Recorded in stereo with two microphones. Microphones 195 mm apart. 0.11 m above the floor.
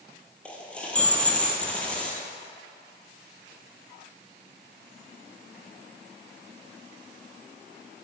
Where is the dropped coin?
5° left (ahead or behind), 1.2 m.